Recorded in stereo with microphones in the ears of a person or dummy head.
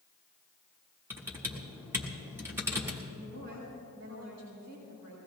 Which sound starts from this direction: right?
A woman speaking, at 3.1 s.